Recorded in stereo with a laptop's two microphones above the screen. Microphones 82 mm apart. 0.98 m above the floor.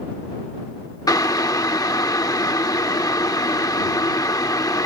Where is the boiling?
50° left (ahead or behind).